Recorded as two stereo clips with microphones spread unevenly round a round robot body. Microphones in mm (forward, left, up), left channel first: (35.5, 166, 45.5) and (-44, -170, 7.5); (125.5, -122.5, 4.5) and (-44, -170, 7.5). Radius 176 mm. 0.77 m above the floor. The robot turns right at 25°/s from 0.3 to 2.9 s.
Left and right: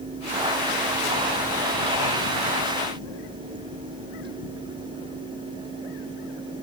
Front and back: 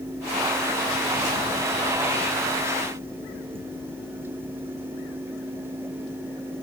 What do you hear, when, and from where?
Only background noise.